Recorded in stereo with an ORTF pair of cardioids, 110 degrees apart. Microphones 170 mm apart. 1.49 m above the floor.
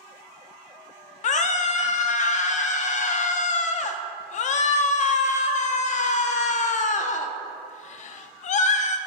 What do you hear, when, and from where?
1.2 s a scream: 45° left, 0.5 m